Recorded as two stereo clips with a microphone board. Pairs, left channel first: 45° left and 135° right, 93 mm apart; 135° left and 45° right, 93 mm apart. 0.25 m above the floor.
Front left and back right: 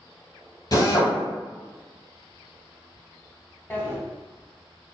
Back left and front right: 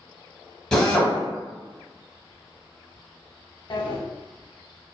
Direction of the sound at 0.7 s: 55° left.